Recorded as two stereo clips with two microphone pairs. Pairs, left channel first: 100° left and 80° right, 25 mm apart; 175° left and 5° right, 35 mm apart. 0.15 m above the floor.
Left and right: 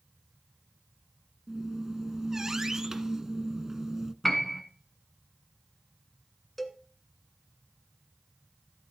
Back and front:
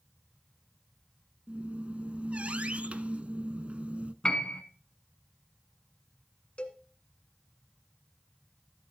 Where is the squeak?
20° right, 0.6 m.